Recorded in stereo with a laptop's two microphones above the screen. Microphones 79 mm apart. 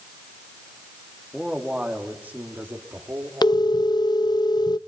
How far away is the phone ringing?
About 0.6 m.